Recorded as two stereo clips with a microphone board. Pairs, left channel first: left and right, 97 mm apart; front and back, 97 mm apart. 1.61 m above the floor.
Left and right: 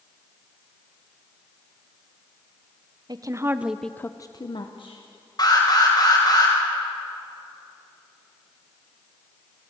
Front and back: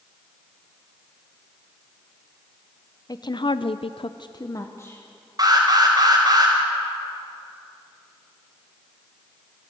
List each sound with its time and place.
3.1 s a woman speaking: 45° right, 1.0 m; by 5.0 s 70° left, 1.4 m
5.4 s an alarm: 135° left, 5 m